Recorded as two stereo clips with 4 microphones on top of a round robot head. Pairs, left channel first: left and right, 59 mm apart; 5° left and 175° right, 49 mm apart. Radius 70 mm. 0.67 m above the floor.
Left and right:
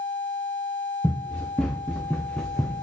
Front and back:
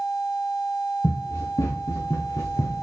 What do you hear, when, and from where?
1.0 s running footsteps: 10° left, 4.5 m